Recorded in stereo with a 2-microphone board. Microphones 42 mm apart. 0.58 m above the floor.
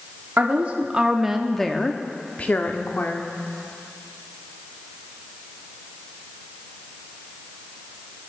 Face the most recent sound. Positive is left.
turn(degrees=55)  # may be behind; listen again after turning